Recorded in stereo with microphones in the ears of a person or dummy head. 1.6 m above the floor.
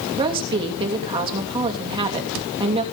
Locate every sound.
0.2 s a woman speaking: 25° right (ahead or behind), 3 m